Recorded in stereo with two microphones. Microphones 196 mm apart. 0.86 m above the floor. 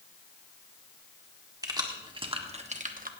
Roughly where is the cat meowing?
I don't hear a cat meowing.